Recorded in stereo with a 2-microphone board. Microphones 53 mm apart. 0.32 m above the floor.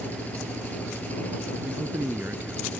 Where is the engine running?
30° left (ahead or behind).